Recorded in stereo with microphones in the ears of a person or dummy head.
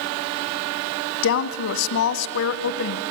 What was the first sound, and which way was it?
A woman speaking, 70° left (ahead or behind).